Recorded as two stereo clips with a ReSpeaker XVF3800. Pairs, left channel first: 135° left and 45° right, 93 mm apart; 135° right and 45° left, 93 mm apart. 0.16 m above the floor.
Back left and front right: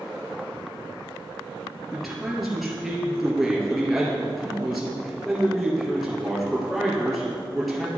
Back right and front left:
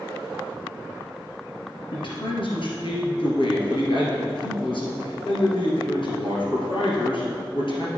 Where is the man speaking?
135° right, 2.5 m.